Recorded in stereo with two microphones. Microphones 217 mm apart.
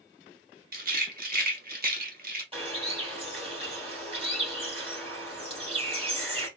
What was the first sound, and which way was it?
A rattle, 40° right (ahead or behind).